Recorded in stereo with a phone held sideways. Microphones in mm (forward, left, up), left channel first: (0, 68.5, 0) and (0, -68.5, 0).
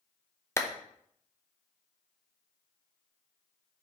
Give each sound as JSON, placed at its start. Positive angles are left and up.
{"t": 0.6, "sound": "a clap", "side_deg": 20, "distance_m": 0.8}